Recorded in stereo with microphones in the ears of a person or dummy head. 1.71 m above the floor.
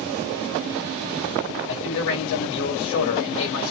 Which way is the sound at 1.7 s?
75° left (ahead or behind).